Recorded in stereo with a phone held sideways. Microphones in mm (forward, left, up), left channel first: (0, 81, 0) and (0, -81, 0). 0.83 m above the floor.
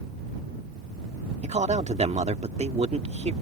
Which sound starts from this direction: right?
A man speaking, at 1.4 s.